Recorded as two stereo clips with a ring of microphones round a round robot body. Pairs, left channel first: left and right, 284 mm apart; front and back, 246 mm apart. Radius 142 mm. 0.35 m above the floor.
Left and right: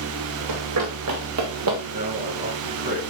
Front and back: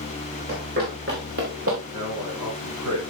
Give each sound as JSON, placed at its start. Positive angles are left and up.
{"t": 0.5, "sound": "running footsteps", "azimuth_deg": -120, "distance_m": 4.0}
{"t": 1.9, "sound": "a man speaking", "azimuth_deg": -155, "distance_m": 4.5}